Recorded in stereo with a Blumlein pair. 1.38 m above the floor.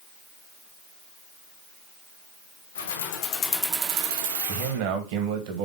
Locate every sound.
2.8 s keys jangling: 60° left, 1.3 m; by 4.8 s 70° right, 1.5 m
4.5 s a man speaking: 45° right, 1.2 m